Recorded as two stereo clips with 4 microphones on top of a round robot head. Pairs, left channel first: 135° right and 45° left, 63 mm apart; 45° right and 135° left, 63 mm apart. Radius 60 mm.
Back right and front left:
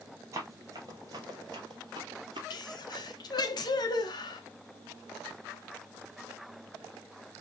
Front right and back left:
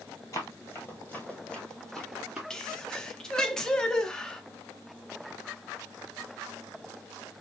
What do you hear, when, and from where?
0.3 s running footsteps: straight ahead, 1.8 m; by 2.4 s 55° left, 1.7 m
2.5 s a sneeze: 125° right, 1.1 m